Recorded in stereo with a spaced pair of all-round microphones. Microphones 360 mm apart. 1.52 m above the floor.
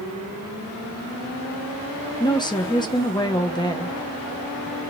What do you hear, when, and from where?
2.2 s a woman speaking: 10° left (ahead or behind), 0.8 m